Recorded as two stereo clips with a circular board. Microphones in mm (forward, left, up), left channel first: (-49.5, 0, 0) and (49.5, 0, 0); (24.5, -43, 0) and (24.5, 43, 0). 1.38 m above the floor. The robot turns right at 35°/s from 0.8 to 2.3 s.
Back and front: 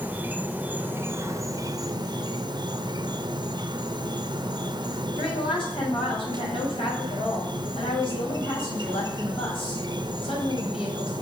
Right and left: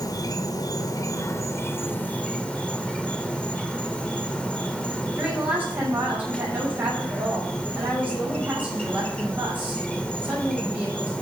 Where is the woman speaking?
160° left, 6.5 m.